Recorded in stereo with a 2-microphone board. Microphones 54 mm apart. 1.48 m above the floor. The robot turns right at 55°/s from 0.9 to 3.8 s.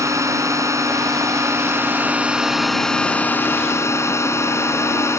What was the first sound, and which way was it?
A drone, 100° right.